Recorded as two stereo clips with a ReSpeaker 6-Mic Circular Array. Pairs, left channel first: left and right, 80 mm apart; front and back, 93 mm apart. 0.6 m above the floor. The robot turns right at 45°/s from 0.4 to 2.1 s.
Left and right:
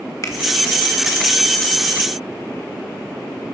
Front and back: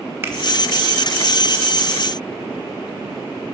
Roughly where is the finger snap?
Behind left.